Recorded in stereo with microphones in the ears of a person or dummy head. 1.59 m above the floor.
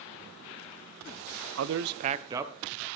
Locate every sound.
1.6 s a man speaking: 85° right, 0.7 m; by 2.9 s 5° right (ahead or behind), 1.3 m